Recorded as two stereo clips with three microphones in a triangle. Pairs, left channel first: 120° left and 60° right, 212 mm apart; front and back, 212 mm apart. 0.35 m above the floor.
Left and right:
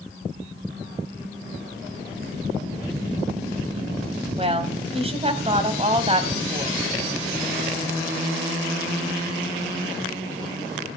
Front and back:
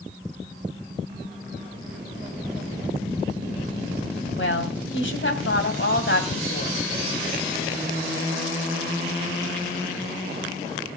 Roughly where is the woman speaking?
Ahead.